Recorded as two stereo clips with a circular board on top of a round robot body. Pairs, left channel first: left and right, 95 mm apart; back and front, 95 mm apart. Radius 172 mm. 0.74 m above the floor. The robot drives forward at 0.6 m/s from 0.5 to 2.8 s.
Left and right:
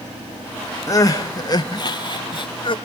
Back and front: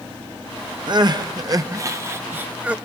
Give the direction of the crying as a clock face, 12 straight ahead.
11 o'clock.